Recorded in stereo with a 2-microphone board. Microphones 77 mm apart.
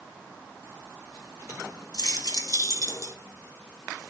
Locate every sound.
1.9 s keys jangling: 55° left (ahead or behind), 3.5 m; by 3.1 s 45° left (ahead or behind), 3 m